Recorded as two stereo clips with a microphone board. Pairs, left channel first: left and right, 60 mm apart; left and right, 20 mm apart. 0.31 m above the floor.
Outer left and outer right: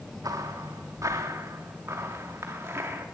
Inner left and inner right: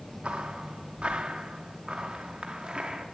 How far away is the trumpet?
I don't hear a trumpet.